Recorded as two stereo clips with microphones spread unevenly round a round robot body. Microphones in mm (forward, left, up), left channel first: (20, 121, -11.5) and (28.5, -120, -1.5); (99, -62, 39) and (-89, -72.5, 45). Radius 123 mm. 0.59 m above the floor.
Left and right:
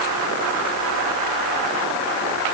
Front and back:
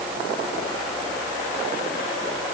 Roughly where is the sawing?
I don't hear sawing.